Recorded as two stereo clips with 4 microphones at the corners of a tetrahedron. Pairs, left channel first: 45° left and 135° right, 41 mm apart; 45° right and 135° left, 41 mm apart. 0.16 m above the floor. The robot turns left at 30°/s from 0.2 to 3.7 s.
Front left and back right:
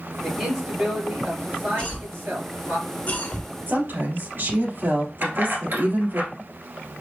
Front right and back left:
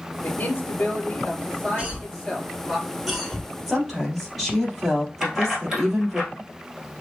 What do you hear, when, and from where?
0.2 s a man speaking: 50° right, 2.5 m; by 2.8 s 130° right, 2.5 m
1.8 s a cough: 90° left, 1.6 m; by 3.5 s 35° left, 1.6 m
3.7 s a woman speaking: 140° right, 3 m
5.2 s keys jangling: 150° right, 1.9 m